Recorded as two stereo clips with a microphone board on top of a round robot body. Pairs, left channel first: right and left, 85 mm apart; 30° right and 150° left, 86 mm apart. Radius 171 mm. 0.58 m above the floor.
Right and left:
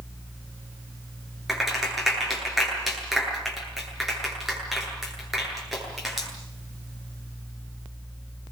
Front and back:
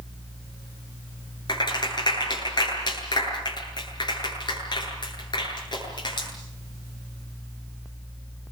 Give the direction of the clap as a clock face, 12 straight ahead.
12 o'clock.